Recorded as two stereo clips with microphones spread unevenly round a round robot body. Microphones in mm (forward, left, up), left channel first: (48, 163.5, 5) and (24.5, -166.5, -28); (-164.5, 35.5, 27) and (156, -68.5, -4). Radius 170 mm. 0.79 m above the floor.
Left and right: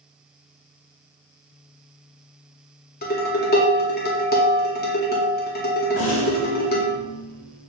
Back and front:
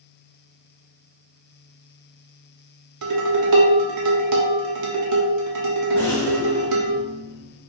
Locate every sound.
3.0 s dishes clattering: 20° left, 0.9 m
6.0 s a rattle: 80° left, 1.4 m